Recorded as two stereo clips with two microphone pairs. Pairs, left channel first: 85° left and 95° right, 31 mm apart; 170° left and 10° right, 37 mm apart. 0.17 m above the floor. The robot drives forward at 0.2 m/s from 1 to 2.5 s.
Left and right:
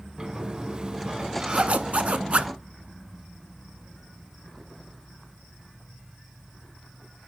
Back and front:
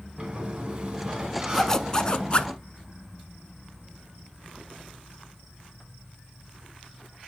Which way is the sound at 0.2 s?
65° right.